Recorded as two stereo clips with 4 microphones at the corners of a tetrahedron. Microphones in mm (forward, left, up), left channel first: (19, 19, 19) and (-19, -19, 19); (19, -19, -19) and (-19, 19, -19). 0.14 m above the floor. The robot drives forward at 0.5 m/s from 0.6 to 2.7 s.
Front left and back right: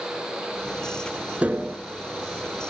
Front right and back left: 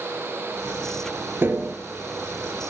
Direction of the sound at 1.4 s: 170° left.